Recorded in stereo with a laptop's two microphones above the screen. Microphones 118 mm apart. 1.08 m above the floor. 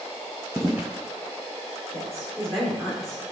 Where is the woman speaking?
Centre (ahead or behind), 2.5 m.